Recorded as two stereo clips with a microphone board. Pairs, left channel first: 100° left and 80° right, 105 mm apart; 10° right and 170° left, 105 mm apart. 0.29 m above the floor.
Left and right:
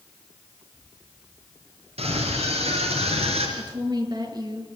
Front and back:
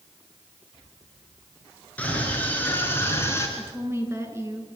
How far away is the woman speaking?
About 5.5 m.